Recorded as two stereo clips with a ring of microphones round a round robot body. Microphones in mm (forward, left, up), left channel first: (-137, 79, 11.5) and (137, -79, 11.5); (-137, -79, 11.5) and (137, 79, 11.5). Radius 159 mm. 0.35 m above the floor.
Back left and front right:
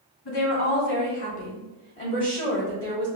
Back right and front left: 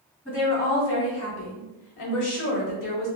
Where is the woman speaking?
130° left, 1.9 m; by 3.1 s 95° right, 1.6 m.